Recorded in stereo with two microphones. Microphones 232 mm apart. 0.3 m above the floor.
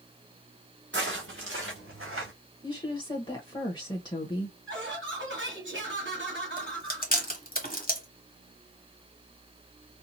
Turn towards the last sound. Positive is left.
turn(degrees=40)  # may be behind; listen again after turning